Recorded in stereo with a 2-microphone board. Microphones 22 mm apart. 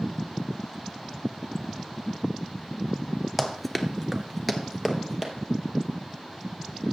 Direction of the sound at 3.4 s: 5° right (ahead or behind).